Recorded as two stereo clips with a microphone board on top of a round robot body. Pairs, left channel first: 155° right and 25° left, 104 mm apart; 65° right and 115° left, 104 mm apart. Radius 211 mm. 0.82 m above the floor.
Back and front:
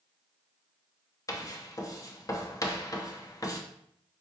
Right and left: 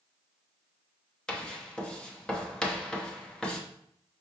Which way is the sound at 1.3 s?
145° right.